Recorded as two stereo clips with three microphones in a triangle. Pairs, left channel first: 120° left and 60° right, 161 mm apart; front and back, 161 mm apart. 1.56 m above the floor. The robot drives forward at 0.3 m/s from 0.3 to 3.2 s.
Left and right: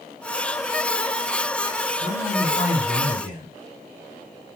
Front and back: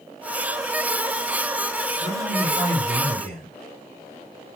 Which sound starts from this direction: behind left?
A man speaking, at 2.0 s.